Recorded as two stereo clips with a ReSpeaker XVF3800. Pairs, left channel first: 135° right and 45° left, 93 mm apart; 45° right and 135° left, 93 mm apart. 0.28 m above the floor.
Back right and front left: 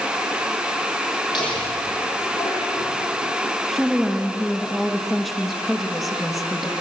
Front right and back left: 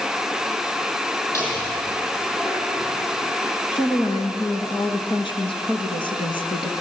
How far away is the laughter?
About 8.5 m.